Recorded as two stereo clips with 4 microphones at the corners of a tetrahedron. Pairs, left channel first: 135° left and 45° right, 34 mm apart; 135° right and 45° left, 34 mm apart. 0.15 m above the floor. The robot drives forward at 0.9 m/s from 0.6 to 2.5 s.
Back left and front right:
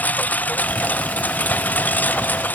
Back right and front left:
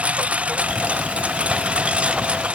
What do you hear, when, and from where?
0.0 s a lawn mower: 95° left; by 2.5 s 100° left